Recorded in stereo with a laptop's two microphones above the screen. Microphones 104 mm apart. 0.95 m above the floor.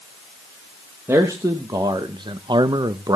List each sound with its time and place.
1.1 s a man speaking: 25° right (ahead or behind), 1.0 m; by 3.2 s 35° right (ahead or behind), 0.9 m